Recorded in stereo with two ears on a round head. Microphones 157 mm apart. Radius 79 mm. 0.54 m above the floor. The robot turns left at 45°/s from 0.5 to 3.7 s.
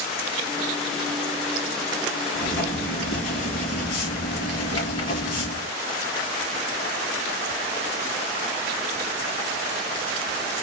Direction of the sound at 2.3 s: 90° left.